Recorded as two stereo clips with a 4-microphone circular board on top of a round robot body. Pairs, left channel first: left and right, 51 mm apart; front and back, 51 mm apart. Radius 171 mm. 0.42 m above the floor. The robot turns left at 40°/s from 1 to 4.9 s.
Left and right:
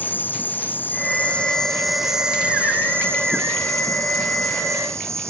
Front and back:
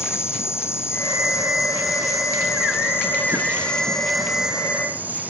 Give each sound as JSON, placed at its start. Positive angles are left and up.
{"t": 0.0, "sound": "an insect", "azimuth_deg": 35}